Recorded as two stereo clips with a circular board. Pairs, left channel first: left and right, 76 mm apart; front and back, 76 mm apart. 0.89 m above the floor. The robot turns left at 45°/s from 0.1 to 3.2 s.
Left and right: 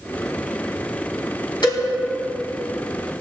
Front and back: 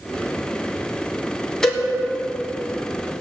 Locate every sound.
1.6 s a cowbell: 80° left, 3 m; by 1.8 s 75° left, 3 m